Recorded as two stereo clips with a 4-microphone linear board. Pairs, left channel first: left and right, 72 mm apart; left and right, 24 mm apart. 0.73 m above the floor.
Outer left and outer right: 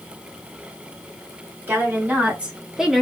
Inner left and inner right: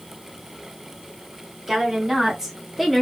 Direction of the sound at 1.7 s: 25° right (ahead or behind).